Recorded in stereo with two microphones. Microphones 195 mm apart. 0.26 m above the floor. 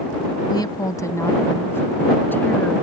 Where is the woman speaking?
20° left (ahead or behind); by 2.8 s 10° left (ahead or behind).